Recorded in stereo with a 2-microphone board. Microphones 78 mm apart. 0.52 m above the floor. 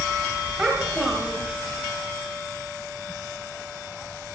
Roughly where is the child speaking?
Centre.